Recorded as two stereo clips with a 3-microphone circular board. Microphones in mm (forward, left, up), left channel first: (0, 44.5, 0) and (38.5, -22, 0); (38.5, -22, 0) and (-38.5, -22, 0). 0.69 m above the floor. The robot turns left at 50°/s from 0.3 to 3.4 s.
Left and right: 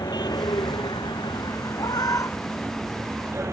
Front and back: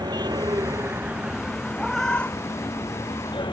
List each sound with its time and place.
0.0 s a vehicle: 150° left; by 3.5 s 5° right
1.8 s a cat meowing: 95° left; by 3.4 s 15° left